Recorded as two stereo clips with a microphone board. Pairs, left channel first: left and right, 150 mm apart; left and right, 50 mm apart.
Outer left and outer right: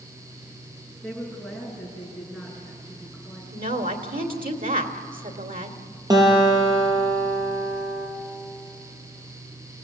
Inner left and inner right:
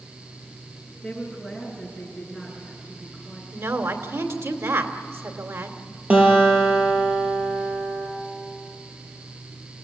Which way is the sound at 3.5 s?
70° right (ahead or behind).